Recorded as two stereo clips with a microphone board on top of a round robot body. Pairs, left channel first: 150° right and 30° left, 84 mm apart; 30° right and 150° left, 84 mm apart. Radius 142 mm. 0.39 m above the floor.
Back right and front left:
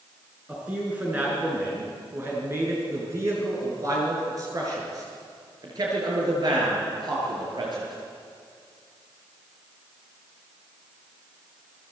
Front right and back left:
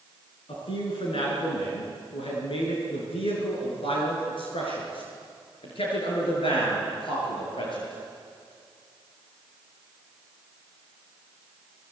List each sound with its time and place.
0.5 s a man speaking: 50° right, 6.5 m; by 7.9 s 5° right, 10 m